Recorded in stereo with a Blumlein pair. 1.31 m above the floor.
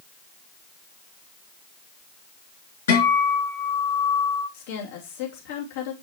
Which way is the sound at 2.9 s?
65° left.